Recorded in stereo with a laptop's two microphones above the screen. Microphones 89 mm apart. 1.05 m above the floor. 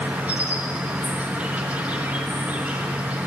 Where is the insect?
15° right (ahead or behind), 1.6 m.